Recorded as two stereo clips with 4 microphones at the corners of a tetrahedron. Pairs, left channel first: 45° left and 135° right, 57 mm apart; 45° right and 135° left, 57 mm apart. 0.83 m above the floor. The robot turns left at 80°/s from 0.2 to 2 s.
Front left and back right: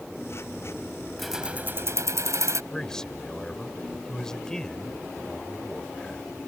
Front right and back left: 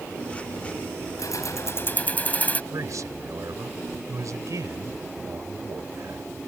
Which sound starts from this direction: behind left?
A man speaking, at 2.7 s.